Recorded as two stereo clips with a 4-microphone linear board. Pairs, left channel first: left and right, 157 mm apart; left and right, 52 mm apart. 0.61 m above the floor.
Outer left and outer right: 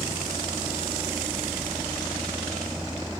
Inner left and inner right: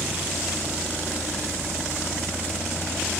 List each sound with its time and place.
0.0 s a vehicle: 10° right (ahead or behind); by 3.2 s 5° right (ahead or behind)